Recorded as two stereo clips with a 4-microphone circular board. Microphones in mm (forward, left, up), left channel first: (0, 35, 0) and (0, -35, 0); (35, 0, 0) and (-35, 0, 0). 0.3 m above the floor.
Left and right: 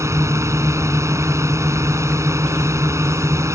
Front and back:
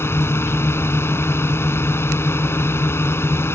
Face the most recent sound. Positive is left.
turn(degrees=-50)